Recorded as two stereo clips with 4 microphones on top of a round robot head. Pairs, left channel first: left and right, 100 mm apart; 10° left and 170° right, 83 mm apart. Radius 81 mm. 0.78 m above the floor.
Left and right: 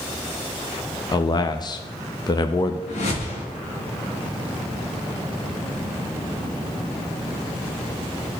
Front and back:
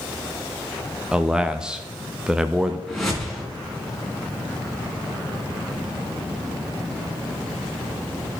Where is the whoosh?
95° left, 2.5 m.